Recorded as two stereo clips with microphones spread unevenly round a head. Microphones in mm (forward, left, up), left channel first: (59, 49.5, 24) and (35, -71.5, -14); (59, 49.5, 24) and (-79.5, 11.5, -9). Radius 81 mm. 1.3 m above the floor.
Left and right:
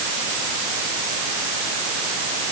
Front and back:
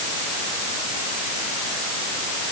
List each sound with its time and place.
Only background noise.